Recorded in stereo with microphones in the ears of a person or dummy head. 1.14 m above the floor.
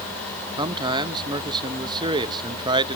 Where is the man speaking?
20° right (ahead or behind), 1.1 m.